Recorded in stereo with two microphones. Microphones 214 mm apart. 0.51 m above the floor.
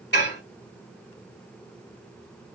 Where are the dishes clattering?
55° left (ahead or behind), 1.4 m.